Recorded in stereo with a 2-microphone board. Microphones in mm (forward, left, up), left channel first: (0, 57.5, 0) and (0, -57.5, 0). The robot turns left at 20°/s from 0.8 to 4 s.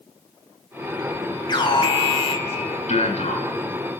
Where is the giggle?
No giggle in this recording.